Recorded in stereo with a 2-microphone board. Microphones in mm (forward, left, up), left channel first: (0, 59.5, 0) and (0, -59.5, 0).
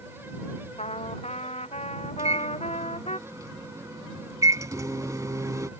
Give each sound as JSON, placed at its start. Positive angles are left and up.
{"t": 0.8, "sound": "a trumpet", "side_deg": 65}
{"t": 2.2, "sound": "a microwave", "side_deg": -30}